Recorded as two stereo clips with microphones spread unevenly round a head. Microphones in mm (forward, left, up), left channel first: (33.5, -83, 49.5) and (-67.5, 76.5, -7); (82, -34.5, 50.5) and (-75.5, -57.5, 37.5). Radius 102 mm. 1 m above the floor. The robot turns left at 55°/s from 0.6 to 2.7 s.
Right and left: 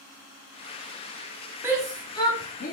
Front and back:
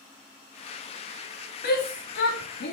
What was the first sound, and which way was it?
A shout, 50° left.